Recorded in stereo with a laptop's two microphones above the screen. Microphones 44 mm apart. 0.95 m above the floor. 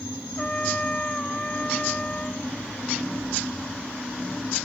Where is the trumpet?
25° left (ahead or behind).